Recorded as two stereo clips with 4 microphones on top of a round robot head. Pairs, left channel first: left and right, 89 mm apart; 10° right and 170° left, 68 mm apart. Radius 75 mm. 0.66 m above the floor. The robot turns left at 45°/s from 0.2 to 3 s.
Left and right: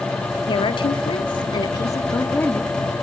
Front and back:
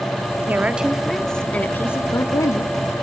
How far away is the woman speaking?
About 1.3 m.